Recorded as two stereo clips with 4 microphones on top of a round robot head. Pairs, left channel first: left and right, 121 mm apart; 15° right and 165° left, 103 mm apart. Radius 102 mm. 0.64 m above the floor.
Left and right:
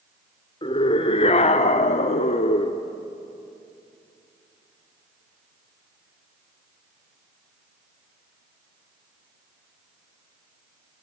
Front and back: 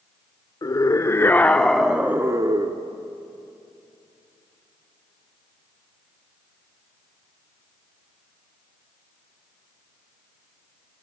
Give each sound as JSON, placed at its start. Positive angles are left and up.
{"t": 0.6, "sound": "a scream", "azimuth_deg": 40, "distance_m": 1.9}